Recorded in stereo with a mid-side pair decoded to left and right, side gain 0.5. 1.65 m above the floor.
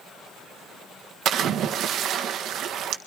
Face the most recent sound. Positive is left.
turn(degrees=-65)